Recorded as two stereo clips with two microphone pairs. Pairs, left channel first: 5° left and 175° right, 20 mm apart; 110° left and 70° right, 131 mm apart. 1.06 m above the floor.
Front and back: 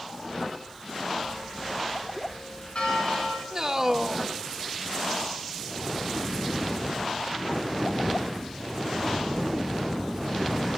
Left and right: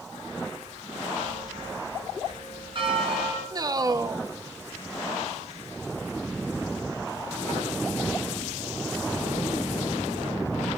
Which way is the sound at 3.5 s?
120° right.